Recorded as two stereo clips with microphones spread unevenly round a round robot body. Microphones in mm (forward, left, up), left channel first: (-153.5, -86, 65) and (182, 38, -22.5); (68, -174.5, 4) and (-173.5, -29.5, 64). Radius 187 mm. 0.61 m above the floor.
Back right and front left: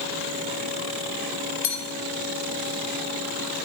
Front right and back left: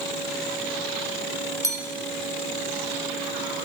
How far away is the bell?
About 1.3 m.